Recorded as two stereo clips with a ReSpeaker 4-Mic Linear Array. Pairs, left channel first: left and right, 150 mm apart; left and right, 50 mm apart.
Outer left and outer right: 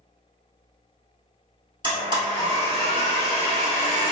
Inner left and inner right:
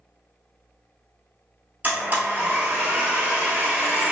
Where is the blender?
35° right (ahead or behind), 1.0 m.